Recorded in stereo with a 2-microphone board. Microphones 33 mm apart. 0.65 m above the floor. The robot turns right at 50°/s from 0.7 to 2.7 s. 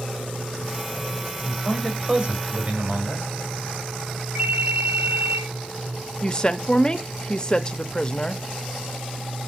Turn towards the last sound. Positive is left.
turn(degrees=25)  # may be behind; listen again after turning